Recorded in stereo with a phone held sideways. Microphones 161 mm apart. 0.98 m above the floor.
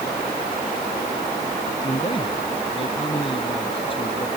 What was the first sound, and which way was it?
A man speaking, 35° left (ahead or behind).